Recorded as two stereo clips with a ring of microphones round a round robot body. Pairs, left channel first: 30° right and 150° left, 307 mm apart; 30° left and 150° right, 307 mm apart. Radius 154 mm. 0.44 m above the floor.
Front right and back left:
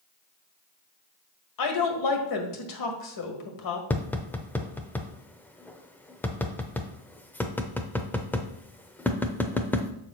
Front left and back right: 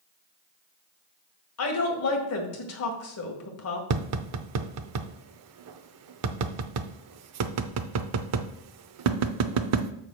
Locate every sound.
1.6 s a woman speaking: 10° right, 1.8 m
3.9 s tapping: 115° right, 0.6 m